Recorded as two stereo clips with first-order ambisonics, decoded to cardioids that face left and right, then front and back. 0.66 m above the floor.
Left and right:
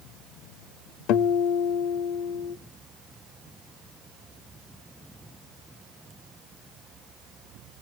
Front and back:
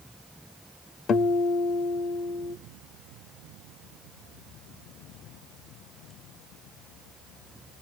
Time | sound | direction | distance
1.1 | a guitar | 60° left | 0.6 m